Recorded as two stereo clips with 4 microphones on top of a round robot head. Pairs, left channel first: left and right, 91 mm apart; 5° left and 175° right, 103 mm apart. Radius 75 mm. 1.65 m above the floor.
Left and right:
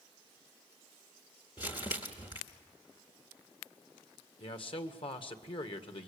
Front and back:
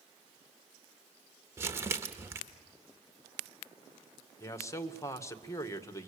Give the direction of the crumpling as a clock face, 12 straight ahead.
8 o'clock.